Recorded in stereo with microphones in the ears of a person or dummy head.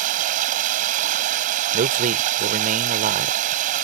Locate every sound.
0.0 s running water: 40° right (ahead or behind)
1.7 s a man speaking: 40° right (ahead or behind)